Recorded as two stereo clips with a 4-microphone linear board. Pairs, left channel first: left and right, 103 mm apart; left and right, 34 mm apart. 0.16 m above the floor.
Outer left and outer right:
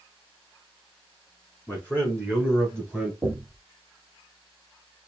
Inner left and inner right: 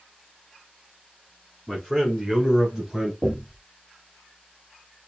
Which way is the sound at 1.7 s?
20° left (ahead or behind).